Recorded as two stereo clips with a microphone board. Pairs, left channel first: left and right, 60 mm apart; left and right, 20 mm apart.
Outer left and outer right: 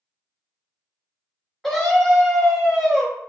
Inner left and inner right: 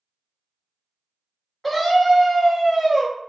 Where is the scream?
5° left (ahead or behind), 1.3 m.